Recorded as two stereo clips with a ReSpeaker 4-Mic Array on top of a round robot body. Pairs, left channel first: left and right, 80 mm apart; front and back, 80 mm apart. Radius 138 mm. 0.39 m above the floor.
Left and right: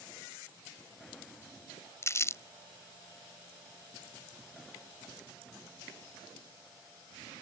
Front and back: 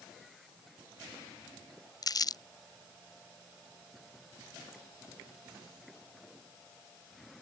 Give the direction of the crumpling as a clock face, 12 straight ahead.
11 o'clock.